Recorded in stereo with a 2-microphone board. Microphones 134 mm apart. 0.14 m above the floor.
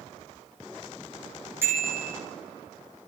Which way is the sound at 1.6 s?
20° right (ahead or behind).